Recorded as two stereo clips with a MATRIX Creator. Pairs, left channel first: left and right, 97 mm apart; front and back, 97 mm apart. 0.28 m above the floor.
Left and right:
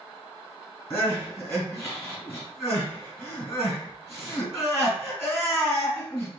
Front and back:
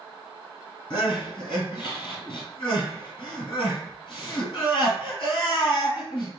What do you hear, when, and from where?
0.9 s crying: 30° left, 2.5 m